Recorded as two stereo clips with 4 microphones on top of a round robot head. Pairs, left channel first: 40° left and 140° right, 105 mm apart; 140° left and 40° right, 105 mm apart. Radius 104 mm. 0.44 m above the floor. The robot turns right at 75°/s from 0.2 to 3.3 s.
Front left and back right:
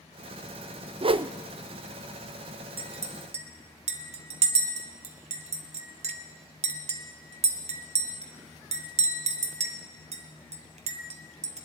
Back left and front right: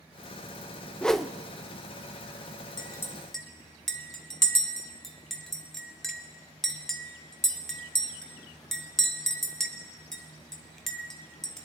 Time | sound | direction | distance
1.0 | a whoosh | 145° right | 0.5 m
2.8 | a clink | 175° right | 1.0 m